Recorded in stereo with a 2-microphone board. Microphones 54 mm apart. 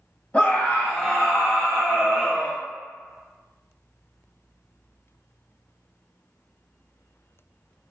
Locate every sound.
0.3 s a scream: 25° left (ahead or behind), 1.4 m; by 2.6 s 30° right (ahead or behind), 1.5 m